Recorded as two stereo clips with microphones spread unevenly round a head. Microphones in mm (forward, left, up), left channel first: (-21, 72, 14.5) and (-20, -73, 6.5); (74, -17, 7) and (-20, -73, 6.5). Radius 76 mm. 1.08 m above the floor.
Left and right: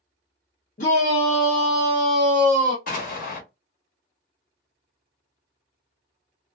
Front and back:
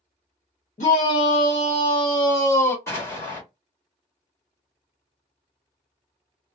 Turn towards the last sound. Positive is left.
turn(degrees=95)